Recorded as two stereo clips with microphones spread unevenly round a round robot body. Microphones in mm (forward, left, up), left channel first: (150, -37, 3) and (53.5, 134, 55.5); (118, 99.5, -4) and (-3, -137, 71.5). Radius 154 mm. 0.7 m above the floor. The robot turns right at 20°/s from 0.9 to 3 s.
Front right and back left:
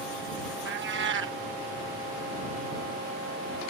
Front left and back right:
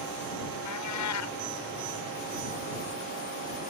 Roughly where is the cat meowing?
Left.